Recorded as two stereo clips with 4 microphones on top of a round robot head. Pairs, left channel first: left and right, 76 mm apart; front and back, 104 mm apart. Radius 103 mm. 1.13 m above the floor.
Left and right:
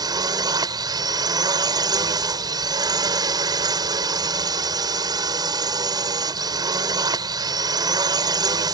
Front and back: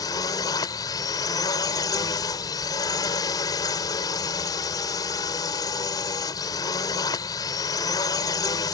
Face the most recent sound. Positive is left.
turn(degrees=-60)